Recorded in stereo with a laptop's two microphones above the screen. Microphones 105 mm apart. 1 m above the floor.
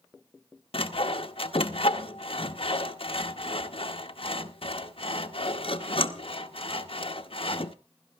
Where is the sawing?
60° left (ahead or behind), 0.7 m.